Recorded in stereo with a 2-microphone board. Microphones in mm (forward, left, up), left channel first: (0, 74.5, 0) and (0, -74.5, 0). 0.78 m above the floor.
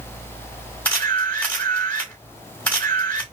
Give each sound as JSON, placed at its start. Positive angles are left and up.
{"t": 0.8, "sound": "a camera shutter", "side_deg": 15, "distance_m": 2.5}